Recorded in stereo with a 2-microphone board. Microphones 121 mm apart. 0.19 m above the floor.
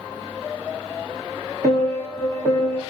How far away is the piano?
About 8 m.